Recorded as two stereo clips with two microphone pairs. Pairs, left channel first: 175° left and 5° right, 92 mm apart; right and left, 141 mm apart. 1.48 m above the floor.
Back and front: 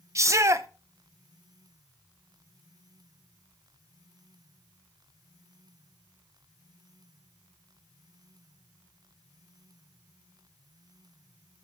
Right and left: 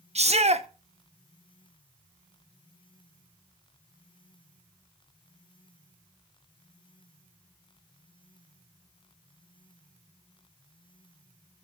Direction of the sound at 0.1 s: 50° left.